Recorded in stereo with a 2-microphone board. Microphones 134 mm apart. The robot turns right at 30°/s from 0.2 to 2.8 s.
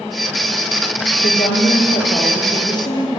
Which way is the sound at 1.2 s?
95° left.